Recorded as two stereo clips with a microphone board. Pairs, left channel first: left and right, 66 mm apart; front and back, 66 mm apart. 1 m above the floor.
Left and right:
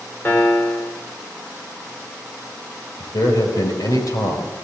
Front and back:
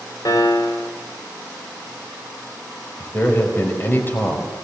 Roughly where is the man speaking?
Ahead left.